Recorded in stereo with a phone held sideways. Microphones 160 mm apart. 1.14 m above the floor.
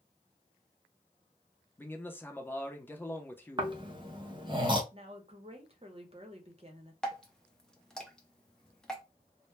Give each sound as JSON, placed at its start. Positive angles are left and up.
{"t": 1.8, "sound": "a man speaking", "side_deg": 10, "distance_m": 0.6}
{"t": 3.6, "sound": "snoring", "side_deg": -30, "distance_m": 0.6}
{"t": 4.9, "sound": "a woman speaking", "side_deg": -40, "distance_m": 0.8}
{"t": 7.0, "sound": "dripping", "side_deg": 5, "distance_m": 0.6}